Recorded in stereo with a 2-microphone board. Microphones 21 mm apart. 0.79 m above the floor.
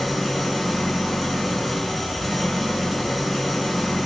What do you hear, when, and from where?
0.0 s an engine running: 5° right (ahead or behind), 6 m